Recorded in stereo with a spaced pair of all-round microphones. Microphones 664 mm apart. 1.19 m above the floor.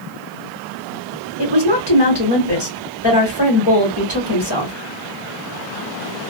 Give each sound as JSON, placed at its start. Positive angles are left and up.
{"t": 1.4, "sound": "a woman speaking", "side_deg": 35, "distance_m": 1.4}